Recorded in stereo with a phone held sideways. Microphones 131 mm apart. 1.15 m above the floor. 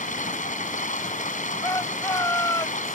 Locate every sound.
0.0 s running water: 75° left (ahead or behind)
1.6 s a shout: 25° left (ahead or behind)